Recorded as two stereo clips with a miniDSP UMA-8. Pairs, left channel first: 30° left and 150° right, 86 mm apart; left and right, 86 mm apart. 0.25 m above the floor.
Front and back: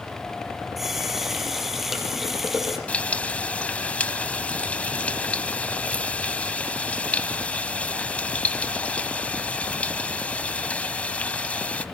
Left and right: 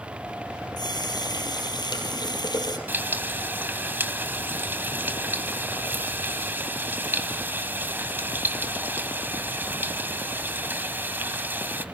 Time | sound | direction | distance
0.8 | a running tap | 125° left | 4.5 m
2.9 | frying | 35° right | 1.8 m